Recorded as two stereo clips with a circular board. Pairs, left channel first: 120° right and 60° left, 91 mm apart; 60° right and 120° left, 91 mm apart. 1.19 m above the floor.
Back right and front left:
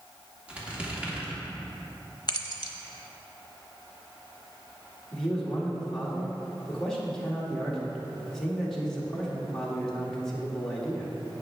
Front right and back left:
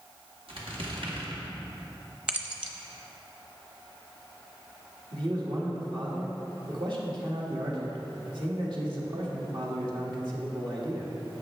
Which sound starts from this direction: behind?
Keys jangling, at 2.3 s.